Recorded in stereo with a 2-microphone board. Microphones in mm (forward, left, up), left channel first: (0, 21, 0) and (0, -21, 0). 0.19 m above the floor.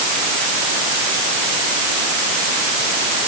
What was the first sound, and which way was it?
Only background noise.